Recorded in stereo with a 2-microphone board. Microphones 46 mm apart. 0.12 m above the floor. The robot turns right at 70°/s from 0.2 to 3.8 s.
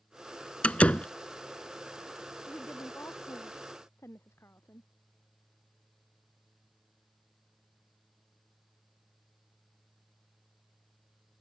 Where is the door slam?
25° left (ahead or behind); by 1.1 s 30° left (ahead or behind).